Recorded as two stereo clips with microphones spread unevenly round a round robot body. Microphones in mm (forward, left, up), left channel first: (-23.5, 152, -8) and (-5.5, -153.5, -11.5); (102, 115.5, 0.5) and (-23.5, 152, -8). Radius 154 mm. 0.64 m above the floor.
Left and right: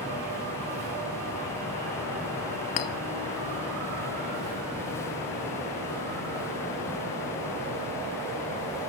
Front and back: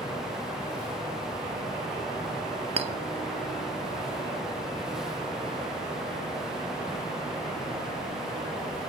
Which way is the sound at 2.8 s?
120° left.